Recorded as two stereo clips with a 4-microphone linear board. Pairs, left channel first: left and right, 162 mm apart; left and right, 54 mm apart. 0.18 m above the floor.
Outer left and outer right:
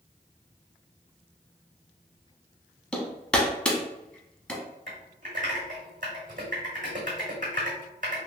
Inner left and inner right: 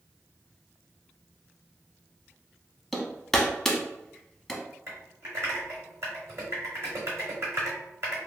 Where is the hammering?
5° left (ahead or behind), 0.7 m.